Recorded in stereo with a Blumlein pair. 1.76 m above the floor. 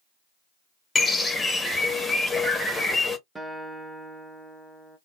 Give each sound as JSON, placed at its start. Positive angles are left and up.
{"t": 0.9, "sound": "a bird", "azimuth_deg": 5, "distance_m": 0.8}
{"t": 3.4, "sound": "a guitar", "azimuth_deg": -5, "distance_m": 0.8}